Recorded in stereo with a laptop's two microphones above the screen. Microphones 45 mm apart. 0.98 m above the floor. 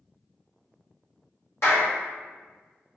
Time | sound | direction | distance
1.6 | a clap | 65° left (ahead or behind) | 1.1 m